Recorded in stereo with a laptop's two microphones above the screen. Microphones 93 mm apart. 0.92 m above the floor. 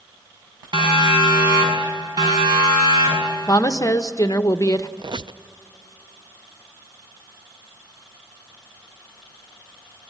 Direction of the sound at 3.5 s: 35° left (ahead or behind).